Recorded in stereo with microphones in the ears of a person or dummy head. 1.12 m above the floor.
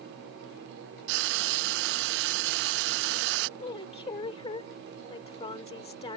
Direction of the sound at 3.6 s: 30° left (ahead or behind).